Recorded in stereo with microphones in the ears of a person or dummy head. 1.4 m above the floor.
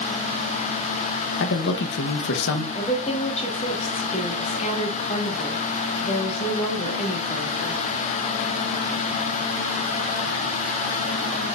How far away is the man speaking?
About 1.0 m.